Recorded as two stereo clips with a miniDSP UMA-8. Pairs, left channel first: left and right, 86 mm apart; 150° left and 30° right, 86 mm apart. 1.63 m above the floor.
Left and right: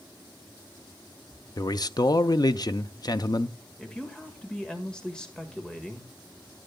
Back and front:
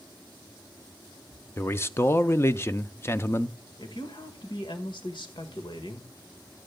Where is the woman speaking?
170° left, 1.6 m.